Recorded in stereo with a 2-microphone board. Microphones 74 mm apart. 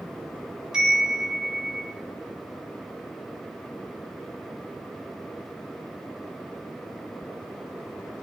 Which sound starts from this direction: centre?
A chime, at 0.7 s.